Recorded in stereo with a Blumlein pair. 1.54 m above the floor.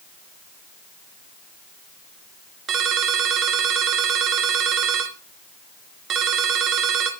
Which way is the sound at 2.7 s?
25° right.